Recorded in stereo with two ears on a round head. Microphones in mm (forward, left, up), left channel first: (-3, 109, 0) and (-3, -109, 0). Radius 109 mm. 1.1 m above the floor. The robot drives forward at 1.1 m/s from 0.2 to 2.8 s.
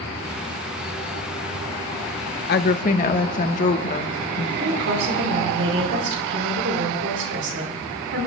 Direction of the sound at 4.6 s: 60° right (ahead or behind).